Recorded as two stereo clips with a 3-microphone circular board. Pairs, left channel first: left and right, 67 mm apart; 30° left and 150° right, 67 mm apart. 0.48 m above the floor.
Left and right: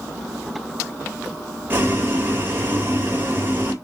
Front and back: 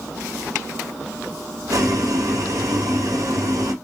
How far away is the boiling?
About 2.5 m.